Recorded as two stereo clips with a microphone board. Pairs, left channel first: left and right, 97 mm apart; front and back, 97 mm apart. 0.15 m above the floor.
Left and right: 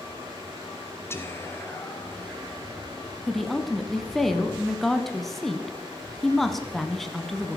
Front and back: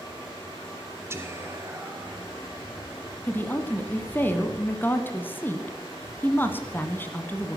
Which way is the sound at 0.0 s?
45° right.